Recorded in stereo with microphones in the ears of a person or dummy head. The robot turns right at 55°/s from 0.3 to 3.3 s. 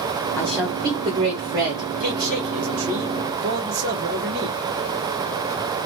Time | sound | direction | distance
0.4 | a woman speaking | straight behind | 1.8 m
2.0 | a man speaking | 130° right | 1.5 m